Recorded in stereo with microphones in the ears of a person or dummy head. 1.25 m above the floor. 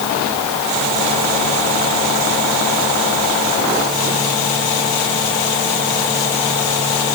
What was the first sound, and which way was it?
Only background noise.